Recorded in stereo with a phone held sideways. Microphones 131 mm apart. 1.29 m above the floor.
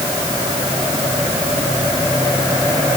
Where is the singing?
I don't hear singing.